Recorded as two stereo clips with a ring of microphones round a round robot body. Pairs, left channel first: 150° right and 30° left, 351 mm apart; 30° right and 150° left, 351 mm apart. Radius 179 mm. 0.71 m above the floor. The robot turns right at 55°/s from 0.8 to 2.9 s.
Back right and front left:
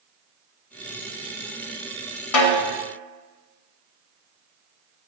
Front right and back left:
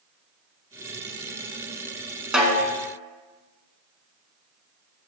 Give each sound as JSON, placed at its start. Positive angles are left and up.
{"t": 2.3, "sound": "a snare drum", "azimuth_deg": -125, "distance_m": 1.0}